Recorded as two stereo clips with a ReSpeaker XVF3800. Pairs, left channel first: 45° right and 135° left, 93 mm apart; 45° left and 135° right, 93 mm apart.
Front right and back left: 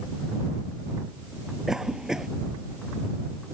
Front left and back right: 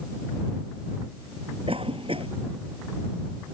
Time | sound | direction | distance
1.7 | a cough | 140° right | ?